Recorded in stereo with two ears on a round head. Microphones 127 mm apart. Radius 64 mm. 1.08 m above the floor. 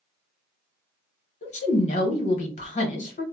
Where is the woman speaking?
50° left (ahead or behind), 1.1 m.